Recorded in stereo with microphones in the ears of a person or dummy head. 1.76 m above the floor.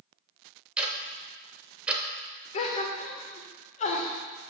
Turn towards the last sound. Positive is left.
turn(degrees=35)  # may be behind; listen again after turning